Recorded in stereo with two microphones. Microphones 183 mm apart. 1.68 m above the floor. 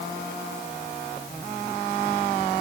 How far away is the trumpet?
No trumpet in this recording.